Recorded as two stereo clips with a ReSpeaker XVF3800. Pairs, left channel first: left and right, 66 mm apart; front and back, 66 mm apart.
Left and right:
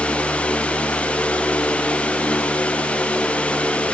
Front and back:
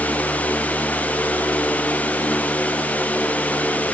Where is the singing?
No singing in this recording.